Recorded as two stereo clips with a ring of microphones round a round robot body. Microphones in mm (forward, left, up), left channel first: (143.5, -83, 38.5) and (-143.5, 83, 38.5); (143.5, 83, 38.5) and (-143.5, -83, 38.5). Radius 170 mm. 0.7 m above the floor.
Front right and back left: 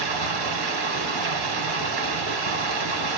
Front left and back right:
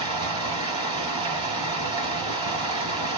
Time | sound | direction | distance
0.0 | running water | 135° left | 1.3 m